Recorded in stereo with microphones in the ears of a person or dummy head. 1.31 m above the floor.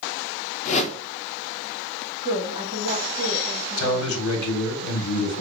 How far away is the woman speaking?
About 1.5 m.